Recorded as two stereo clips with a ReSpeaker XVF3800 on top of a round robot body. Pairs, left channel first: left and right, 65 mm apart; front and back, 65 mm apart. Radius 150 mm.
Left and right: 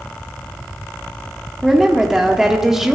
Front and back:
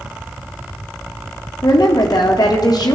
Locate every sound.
1.6 s a woman speaking: 5° right, 1.0 m